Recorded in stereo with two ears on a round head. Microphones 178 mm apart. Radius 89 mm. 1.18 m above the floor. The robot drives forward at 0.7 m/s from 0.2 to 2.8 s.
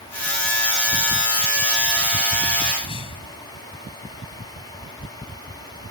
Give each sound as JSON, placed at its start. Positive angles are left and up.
{"t": 2.8, "sound": "a whoosh", "side_deg": 25}